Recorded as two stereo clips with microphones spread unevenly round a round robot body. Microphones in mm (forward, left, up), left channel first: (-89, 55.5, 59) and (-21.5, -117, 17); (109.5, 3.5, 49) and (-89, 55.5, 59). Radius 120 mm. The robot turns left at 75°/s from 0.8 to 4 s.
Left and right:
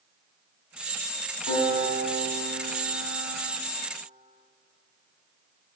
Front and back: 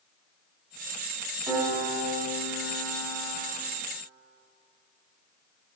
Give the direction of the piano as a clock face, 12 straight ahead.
9 o'clock.